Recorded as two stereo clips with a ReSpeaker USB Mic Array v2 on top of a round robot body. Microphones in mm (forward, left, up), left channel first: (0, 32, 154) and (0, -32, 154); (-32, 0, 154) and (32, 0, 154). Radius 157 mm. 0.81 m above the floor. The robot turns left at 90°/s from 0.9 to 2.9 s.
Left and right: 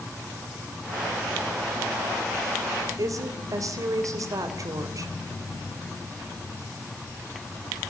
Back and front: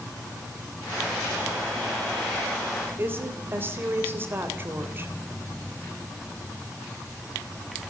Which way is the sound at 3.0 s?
60° right.